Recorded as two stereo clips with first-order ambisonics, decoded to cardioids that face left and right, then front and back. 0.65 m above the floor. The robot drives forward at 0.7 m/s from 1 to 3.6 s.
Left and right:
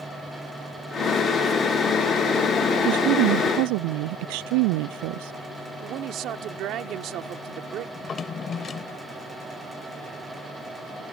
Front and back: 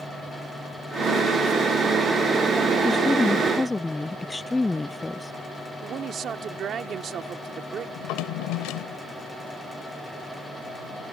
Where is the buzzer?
I don't hear a buzzer.